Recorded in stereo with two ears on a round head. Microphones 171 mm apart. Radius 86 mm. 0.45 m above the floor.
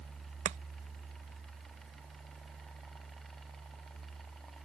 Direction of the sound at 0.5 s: 35° right (ahead or behind).